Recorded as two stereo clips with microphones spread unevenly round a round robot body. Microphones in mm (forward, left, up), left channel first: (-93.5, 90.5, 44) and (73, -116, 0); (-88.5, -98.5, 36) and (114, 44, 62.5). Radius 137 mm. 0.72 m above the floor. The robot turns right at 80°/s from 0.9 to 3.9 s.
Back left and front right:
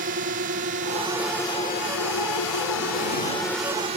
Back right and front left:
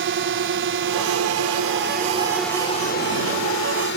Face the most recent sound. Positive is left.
turn(degrees=-110)